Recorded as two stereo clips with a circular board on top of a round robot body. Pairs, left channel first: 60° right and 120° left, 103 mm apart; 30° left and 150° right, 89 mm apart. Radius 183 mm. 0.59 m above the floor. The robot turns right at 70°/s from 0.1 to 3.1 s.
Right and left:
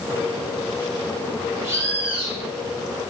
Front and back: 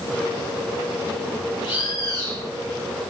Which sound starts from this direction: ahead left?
A bird, at 1.6 s.